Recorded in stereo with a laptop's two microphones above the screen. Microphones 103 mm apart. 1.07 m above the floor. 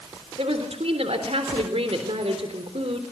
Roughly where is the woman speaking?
Right.